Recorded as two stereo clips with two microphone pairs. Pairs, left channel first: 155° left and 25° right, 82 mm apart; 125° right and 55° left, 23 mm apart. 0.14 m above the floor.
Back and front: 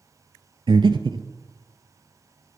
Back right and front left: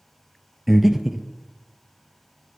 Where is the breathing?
25° right, 0.5 m.